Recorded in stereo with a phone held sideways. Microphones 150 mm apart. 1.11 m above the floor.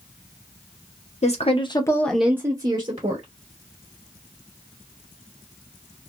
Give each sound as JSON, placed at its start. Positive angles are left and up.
{"t": 1.2, "sound": "a woman speaking", "side_deg": 50, "distance_m": 0.8}